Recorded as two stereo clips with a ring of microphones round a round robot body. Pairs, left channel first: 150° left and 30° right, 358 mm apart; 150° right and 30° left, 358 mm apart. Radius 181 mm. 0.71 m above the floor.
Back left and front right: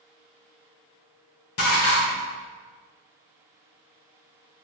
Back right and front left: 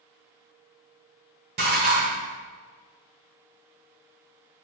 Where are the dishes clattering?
95° left, 1.5 m.